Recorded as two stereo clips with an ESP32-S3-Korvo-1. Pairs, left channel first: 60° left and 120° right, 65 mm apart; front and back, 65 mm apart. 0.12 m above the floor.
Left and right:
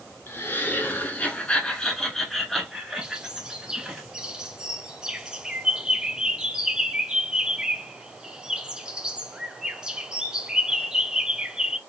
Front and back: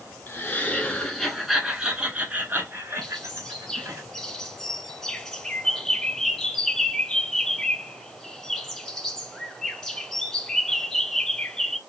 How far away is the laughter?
About 1.3 m.